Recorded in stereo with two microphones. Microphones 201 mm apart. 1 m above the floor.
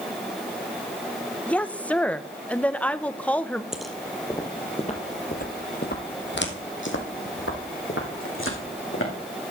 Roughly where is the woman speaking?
Centre.